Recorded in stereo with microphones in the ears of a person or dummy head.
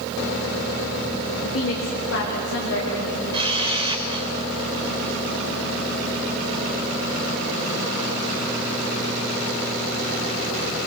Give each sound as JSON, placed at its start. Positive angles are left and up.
{"t": 1.4, "sound": "a woman speaking", "side_deg": 75, "distance_m": 2.0}
{"t": 3.3, "sound": "a camera shutter", "side_deg": -25, "distance_m": 3.5}